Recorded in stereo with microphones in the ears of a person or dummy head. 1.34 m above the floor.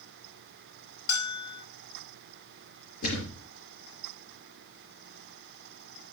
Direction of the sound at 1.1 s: 80° left.